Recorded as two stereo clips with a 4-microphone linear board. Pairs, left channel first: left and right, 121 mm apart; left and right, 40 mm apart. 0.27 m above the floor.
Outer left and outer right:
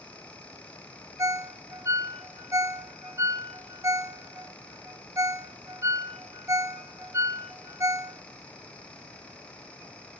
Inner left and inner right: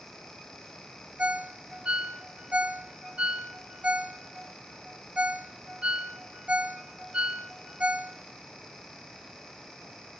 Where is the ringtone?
25° right (ahead or behind), 0.7 m.